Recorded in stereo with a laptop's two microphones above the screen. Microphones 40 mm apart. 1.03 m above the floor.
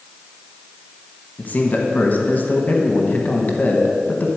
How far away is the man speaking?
About 1.2 m.